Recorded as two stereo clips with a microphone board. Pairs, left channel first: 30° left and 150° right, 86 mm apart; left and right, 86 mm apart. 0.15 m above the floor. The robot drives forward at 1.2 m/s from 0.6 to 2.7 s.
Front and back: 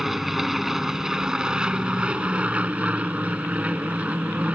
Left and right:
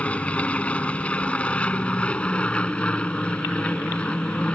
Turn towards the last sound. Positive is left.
turn(degrees=150)